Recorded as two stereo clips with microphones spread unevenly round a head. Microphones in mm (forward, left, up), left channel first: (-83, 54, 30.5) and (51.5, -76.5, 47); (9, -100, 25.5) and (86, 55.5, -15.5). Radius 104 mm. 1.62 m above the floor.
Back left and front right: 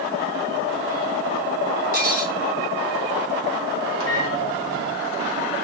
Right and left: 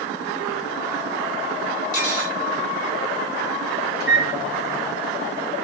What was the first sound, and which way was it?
Cutlery clinking, 80° right.